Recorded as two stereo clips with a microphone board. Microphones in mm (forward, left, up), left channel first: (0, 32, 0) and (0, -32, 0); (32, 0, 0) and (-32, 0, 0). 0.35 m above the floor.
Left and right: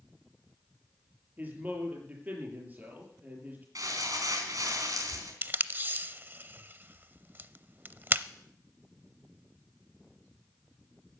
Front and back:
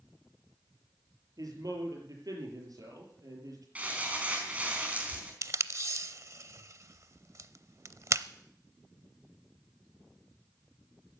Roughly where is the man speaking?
Behind right.